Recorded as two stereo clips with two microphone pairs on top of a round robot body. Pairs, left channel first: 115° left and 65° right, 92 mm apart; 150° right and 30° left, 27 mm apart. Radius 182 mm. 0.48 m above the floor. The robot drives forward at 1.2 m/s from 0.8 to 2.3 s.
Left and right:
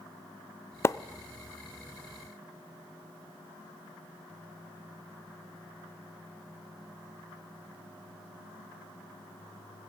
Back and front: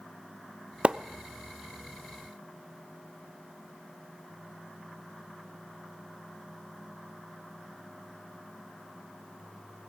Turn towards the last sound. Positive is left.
turn(degrees=170)